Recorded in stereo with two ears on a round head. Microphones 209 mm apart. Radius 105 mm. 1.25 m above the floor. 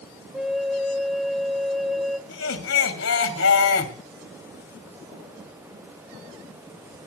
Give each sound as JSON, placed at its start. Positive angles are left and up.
{"t": 0.3, "sound": "a flute", "side_deg": 0, "distance_m": 0.8}
{"t": 2.3, "sound": "laughter", "side_deg": 70, "distance_m": 3.0}